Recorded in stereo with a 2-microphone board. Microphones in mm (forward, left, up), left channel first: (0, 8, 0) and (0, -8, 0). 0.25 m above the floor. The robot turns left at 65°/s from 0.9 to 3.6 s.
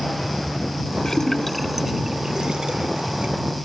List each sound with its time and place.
1.1 s a splash: 30° left (ahead or behind); by 3.4 s 55° right (ahead or behind)